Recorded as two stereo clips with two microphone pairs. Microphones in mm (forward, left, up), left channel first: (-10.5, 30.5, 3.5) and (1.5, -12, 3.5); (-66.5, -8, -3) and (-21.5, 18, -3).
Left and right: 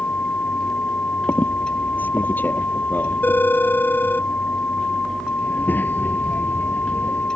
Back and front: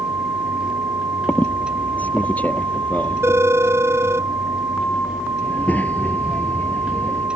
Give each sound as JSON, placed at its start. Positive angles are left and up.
{"t": 1.3, "sound": "a squeak", "azimuth_deg": 150}
{"t": 3.2, "sound": "a phone ringing", "azimuth_deg": 65}
{"t": 5.4, "sound": "a child speaking", "azimuth_deg": 150}